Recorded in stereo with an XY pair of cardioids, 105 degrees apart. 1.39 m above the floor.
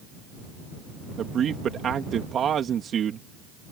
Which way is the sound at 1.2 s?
55° right.